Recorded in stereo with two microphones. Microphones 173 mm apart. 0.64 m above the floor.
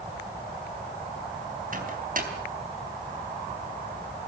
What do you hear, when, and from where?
1.7 s a microwave: 50° right (ahead or behind), 4 m